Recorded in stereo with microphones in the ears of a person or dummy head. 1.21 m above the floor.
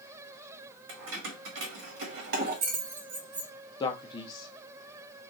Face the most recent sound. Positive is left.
turn(degrees=25)  # may be behind; listen again after turning